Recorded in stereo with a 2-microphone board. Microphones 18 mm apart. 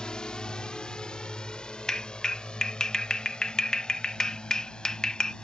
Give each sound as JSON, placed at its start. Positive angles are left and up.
{"t": 0.0, "sound": "a drone", "side_deg": 50}
{"t": 1.9, "sound": "a clap", "side_deg": 45}